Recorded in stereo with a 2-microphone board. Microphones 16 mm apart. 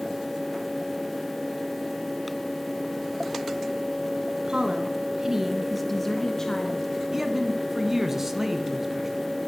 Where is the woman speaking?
50° right (ahead or behind), 1.8 m; by 6.9 s 50° left (ahead or behind), 2.0 m.